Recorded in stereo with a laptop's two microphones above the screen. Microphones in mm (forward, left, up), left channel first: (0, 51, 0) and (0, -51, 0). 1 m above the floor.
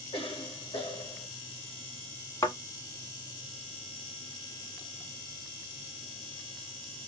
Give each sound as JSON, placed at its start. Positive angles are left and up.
{"t": 0.1, "sound": "a cough", "side_deg": 60, "distance_m": 1.2}
{"t": 2.4, "sound": "a thud", "side_deg": 35, "distance_m": 1.2}